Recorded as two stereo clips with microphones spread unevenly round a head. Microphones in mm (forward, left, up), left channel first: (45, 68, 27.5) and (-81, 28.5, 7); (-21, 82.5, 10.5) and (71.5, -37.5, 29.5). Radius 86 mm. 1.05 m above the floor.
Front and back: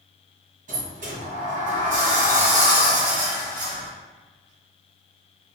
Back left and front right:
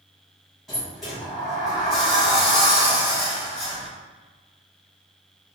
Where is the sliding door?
145° right, 1.4 m.